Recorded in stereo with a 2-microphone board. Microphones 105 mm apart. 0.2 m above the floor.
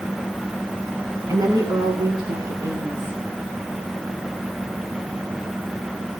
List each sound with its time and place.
1.3 s a woman speaking: 40° right (ahead or behind), 1.6 m; by 3.2 s 45° right (ahead or behind), 1.9 m